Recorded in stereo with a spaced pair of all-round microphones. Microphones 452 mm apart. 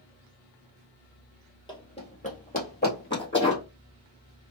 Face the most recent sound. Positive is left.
turn(degrees=25)  # may be behind; listen again after turning